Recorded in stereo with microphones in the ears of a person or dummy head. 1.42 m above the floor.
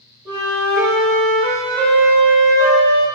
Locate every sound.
0.2 s a flute: 15° right (ahead or behind), 0.8 m